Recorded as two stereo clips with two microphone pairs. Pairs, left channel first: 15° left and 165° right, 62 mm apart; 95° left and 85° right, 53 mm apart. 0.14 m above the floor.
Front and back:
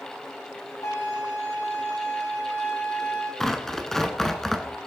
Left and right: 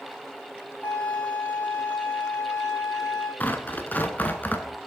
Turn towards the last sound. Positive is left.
turn(degrees=95)